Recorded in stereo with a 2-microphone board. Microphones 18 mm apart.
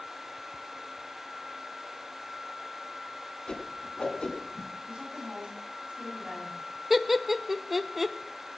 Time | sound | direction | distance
3.5 | a whoosh | 55° left (ahead or behind) | 2.5 m
4.9 | a woman speaking | 65° right (ahead or behind) | 8.5 m
6.9 | laughter | 15° right (ahead or behind) | 0.8 m